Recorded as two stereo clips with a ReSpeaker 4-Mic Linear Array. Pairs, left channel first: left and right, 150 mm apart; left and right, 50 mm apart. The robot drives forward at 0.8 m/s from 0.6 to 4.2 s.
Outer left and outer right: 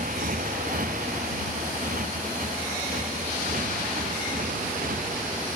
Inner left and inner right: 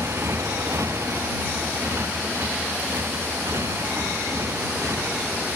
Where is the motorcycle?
65° right (ahead or behind).